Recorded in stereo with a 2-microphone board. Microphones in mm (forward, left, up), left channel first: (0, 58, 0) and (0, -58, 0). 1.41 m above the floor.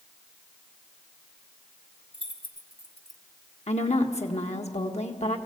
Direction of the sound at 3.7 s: 70° left (ahead or behind).